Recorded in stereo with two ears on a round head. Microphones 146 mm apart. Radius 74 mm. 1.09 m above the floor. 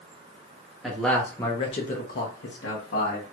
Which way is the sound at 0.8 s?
Centre (ahead or behind).